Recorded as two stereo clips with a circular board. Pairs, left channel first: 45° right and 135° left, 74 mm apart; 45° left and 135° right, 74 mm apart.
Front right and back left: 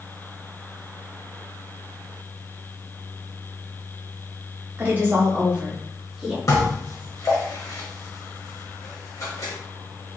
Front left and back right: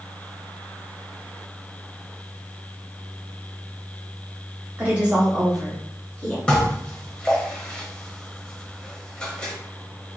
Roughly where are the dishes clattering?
Ahead right.